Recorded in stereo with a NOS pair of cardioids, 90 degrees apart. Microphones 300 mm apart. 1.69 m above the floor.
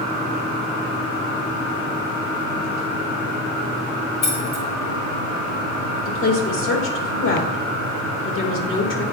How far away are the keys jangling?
About 1.8 m.